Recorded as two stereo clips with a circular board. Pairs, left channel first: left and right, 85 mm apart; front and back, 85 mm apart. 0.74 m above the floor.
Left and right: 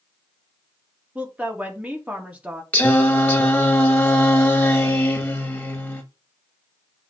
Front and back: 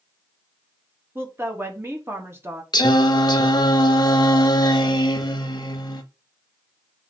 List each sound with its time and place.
1.1 s a woman speaking: 150° right, 1.0 m
2.7 s singing: 25° left, 0.8 m